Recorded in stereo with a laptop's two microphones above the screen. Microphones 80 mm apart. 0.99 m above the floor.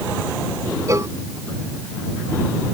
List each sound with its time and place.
0.9 s a cowbell: 40° right (ahead or behind)